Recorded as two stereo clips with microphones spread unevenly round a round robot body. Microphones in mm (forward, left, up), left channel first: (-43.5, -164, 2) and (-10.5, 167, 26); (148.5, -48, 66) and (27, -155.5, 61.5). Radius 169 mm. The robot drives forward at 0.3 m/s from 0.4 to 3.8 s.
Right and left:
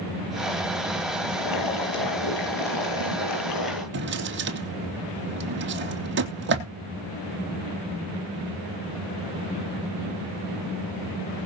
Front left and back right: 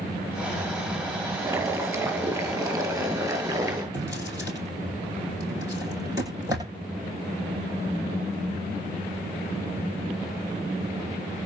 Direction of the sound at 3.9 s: 140° left.